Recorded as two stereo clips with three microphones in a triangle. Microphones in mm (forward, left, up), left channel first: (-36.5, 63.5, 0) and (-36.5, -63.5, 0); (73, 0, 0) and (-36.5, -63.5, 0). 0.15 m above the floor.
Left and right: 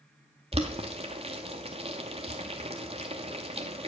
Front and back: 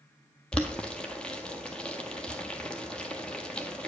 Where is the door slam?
I don't hear a door slam.